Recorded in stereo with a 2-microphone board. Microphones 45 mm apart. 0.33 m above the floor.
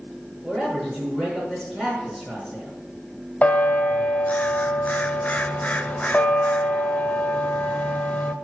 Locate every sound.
0.4 s a man speaking: 10° right (ahead or behind), 4.5 m
3.4 s a bell: 30° left (ahead or behind), 0.6 m